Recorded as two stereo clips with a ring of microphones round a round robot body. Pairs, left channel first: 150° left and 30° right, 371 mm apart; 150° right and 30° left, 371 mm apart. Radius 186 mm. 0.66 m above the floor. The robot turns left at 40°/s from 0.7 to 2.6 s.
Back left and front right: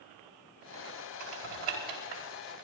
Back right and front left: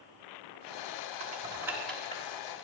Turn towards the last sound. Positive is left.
turn(degrees=-90)